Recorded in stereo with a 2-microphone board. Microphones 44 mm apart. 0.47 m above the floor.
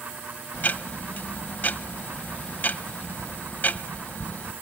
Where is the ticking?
45° left (ahead or behind), 0.6 m.